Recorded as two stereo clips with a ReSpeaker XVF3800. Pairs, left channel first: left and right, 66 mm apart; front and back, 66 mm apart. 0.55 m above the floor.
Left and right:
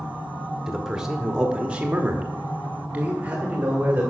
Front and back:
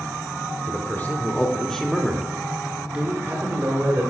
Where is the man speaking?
10° right, 1.4 m; by 4.1 s 150° right, 1.8 m.